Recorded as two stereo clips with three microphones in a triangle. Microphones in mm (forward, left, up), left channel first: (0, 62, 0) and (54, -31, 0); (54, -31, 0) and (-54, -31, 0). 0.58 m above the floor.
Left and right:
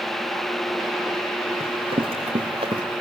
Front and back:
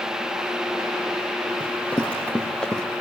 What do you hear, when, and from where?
1.6 s running footsteps: 75° right, 4.5 m; by 2.8 s 85° right, 3 m